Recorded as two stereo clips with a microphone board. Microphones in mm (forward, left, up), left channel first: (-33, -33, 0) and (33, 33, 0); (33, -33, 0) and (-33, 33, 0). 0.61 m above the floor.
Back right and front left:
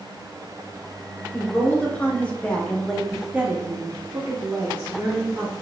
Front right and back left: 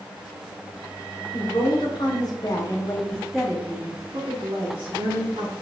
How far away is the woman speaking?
About 1.2 m.